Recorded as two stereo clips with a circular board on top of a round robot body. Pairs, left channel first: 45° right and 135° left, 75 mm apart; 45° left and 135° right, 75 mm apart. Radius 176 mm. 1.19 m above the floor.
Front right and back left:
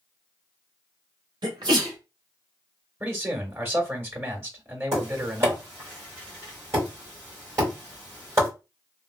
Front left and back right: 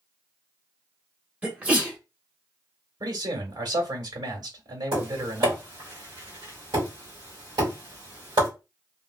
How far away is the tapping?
About 1.4 m.